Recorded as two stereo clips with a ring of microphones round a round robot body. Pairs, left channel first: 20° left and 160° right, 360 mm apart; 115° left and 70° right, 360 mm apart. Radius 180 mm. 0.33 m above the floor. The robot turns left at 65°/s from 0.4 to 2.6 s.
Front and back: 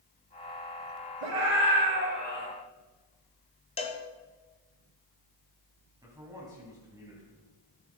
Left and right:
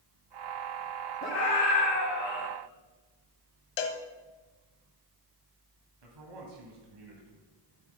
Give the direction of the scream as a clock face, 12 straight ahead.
6 o'clock.